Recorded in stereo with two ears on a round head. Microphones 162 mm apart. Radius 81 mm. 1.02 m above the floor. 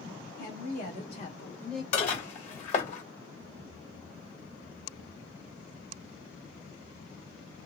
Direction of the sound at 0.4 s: 55° left (ahead or behind).